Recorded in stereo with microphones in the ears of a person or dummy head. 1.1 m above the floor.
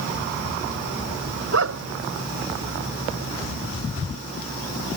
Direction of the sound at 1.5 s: 75° right (ahead or behind).